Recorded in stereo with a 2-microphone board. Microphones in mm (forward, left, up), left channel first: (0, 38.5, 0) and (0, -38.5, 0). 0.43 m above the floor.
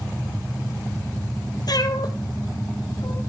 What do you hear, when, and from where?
1.7 s a cat meowing: 60° left (ahead or behind), 1.0 m; by 3.2 s 55° left (ahead or behind), 1.8 m